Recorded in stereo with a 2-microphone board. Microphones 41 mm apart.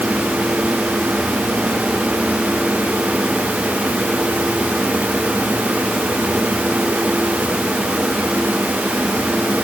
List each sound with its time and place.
Only background noise.